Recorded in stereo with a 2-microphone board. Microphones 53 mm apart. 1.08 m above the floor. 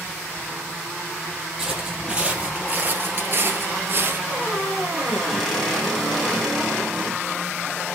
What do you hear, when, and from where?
1.6 s footsteps: 15° right (ahead or behind), 2.5 m; by 4.2 s 40° right (ahead or behind), 1.7 m
4.3 s a squeak: 5° left (ahead or behind), 3 m